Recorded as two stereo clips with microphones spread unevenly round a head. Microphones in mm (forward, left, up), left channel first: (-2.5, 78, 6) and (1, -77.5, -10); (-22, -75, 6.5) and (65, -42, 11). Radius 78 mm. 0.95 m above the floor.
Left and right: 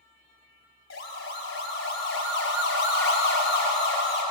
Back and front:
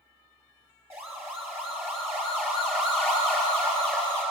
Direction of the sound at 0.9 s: 95° left.